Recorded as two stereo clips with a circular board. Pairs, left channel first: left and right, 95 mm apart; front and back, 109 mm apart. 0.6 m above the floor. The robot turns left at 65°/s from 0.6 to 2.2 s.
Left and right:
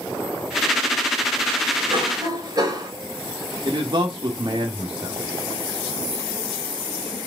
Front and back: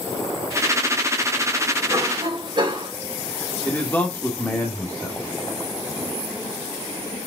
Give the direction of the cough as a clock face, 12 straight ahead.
4 o'clock.